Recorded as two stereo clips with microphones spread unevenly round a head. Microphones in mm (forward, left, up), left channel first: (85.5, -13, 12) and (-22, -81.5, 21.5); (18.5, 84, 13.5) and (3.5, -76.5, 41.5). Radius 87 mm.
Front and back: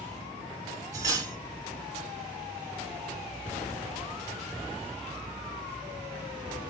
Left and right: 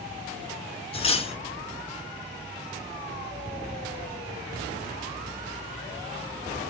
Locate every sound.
0.9 s cutlery clinking: 145° left, 1.1 m